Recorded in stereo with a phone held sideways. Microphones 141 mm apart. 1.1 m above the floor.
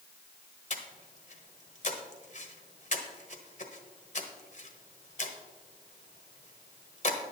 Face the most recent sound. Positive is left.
turn(degrees=60)  # may be behind; listen again after turning